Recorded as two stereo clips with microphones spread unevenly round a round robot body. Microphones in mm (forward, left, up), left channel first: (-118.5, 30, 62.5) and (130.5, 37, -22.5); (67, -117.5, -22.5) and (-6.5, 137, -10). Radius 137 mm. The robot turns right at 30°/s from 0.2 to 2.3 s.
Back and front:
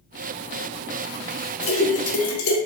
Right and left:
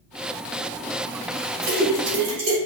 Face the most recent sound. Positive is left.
turn(degrees=165)